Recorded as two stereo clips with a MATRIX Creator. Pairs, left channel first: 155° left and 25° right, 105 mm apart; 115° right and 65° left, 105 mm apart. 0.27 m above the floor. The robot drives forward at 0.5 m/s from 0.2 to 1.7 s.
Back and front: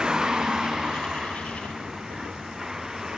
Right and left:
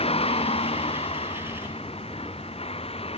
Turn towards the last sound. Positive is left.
turn(degrees=-110)